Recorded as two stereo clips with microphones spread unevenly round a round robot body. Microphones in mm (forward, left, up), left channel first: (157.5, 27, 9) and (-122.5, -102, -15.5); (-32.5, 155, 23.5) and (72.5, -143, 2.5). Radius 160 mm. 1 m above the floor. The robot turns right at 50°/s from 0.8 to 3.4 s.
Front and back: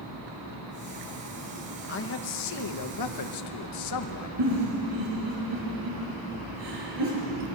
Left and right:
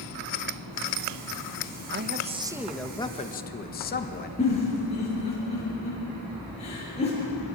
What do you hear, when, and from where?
1.9 s a man speaking: 25° right, 1.4 m; by 4.3 s 50° left, 1.4 m
4.4 s a giggle: straight behind, 9 m